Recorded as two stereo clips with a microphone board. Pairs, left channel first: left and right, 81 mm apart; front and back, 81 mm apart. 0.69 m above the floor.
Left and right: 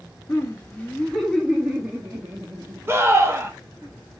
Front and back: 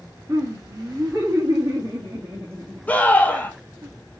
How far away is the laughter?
About 0.8 m.